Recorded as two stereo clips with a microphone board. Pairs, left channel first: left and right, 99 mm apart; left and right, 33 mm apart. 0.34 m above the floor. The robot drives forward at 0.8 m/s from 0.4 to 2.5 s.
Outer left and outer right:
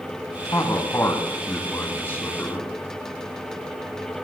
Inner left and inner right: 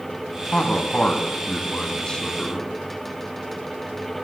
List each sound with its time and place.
0.5 s a man speaking: 40° left (ahead or behind), 2 m; by 2.7 s 20° left (ahead or behind), 3.5 m